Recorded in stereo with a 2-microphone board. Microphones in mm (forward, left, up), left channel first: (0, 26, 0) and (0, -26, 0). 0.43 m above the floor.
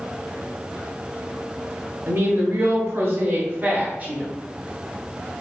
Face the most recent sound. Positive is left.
turn(degrees=-25)  # may be behind; listen again after turning